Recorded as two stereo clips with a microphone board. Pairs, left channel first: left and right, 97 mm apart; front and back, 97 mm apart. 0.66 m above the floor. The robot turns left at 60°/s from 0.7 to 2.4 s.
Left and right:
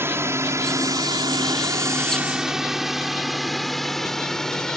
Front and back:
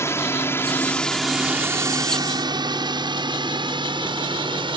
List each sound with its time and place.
0.0 s a drone: 45° right; by 4.8 s 170° left